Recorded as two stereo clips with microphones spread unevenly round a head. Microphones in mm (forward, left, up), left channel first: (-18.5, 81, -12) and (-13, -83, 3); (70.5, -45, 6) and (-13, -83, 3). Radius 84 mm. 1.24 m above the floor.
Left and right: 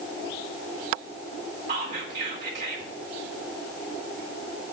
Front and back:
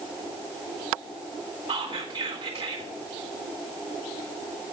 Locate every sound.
1.7 s whispering: 130° right, 2 m